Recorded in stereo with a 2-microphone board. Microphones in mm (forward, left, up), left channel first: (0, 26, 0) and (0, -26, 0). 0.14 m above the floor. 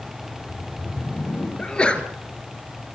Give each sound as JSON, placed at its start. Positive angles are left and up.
{"t": 0.2, "sound": "a whoosh", "side_deg": 40, "distance_m": 6.5}
{"t": 1.6, "sound": "a sneeze", "side_deg": 20, "distance_m": 2.5}